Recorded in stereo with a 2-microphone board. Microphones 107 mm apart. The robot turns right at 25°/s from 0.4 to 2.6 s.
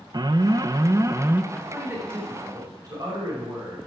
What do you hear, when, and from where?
0.1 s an alarm: 45° right (ahead or behind), 0.5 m; by 1.4 s 25° right (ahead or behind), 0.5 m
1.5 s a man speaking: 10° right (ahead or behind), 5.5 m; by 3.8 s 35° right (ahead or behind), 5.5 m